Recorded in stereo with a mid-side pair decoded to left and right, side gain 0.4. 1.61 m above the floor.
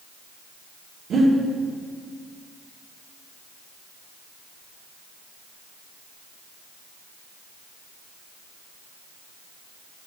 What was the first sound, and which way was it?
Breathing, 65° right.